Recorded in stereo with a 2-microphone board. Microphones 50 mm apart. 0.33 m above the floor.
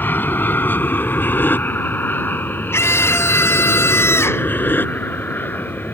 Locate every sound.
0.0 s an aircraft: 40° left (ahead or behind)
2.7 s a scream: 60° left (ahead or behind)